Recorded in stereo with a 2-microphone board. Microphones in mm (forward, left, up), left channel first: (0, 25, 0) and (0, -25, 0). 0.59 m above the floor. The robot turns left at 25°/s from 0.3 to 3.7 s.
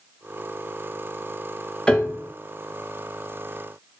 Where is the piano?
15° left (ahead or behind), 0.8 m; by 2.3 s 5° left (ahead or behind), 0.8 m.